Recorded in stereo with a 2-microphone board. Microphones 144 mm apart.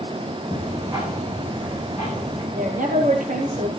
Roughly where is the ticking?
Centre.